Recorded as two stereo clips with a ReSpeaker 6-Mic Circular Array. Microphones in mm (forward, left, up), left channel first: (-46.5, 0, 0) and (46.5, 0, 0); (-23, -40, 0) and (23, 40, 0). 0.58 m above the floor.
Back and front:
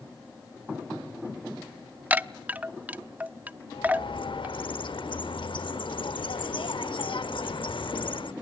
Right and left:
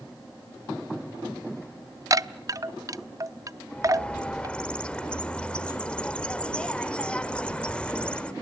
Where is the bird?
160° left, 0.8 m.